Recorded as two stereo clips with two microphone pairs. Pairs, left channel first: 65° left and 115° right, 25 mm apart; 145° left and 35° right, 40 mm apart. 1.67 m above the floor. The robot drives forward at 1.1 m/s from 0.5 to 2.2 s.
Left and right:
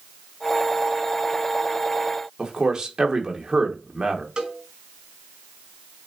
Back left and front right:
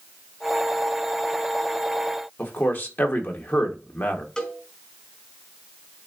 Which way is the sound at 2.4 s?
175° right.